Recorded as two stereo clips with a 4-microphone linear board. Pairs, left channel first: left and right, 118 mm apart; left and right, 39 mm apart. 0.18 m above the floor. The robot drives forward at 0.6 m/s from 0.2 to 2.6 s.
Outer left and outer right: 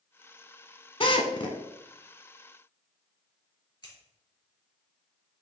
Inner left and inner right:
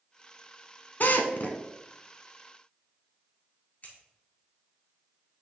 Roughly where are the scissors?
Left.